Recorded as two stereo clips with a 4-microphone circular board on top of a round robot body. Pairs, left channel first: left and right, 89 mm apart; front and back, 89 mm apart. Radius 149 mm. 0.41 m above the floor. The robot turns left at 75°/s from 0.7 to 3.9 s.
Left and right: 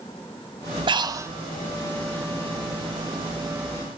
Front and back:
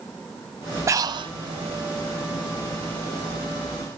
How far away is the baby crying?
No baby crying in this recording.